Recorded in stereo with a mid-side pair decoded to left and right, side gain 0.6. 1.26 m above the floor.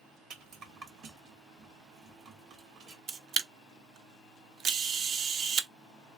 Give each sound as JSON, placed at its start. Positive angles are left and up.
{"t": 0.3, "sound": "a rattle", "azimuth_deg": -55, "distance_m": 1.6}
{"t": 3.1, "sound": "a camera shutter", "azimuth_deg": -65, "distance_m": 0.8}